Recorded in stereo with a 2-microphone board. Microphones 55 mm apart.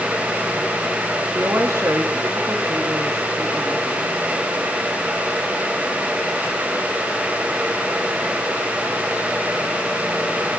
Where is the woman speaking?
65° right (ahead or behind), 1.8 m.